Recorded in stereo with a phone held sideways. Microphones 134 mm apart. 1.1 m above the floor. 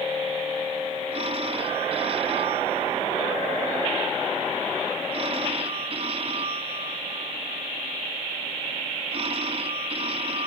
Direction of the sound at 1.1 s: 50° right (ahead or behind).